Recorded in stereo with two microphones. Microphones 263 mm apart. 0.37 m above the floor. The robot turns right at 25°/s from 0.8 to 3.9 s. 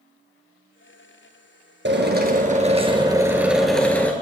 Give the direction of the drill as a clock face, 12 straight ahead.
2 o'clock.